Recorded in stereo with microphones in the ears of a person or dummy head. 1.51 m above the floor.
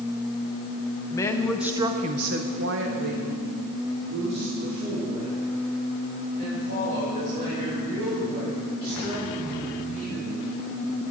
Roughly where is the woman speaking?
Centre.